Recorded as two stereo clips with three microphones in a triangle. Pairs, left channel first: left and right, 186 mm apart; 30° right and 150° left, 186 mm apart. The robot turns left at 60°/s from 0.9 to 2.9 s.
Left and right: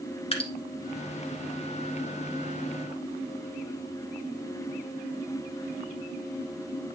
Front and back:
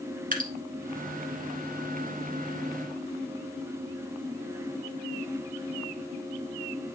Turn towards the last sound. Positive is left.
turn(degrees=15)